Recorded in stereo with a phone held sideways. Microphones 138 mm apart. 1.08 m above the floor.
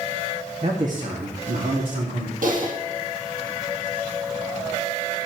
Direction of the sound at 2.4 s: 75° right (ahead or behind).